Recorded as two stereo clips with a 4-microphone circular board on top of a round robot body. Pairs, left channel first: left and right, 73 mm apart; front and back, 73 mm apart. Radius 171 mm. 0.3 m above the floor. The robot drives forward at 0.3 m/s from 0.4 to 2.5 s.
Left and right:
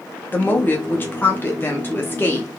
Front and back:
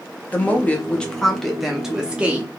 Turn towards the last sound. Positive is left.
turn(degrees=125)